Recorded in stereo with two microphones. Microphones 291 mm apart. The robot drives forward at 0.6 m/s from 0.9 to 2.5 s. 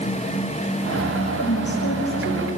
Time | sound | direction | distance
1.4 | a woman speaking | 55° left (ahead or behind) | 7.5 m